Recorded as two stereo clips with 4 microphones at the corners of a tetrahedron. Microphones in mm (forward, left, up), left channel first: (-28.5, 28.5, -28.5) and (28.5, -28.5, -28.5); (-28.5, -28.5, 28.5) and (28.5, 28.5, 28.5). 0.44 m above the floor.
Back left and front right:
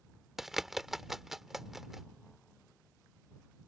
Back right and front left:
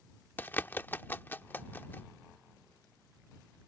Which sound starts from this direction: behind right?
A bird, at 0.4 s.